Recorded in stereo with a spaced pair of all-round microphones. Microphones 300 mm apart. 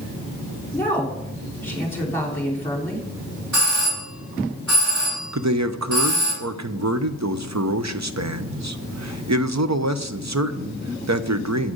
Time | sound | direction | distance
0.7 | a woman speaking | 5° left (ahead or behind) | 4 m
3.5 | a doorbell | 65° right (ahead or behind) | 6 m
5.3 | a man speaking | 60° right (ahead or behind) | 0.8 m